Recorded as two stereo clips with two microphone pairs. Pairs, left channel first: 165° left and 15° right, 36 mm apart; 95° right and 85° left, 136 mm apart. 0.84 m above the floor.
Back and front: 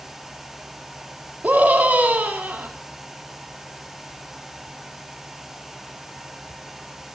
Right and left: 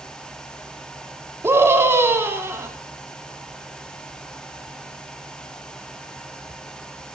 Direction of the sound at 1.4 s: 15° left.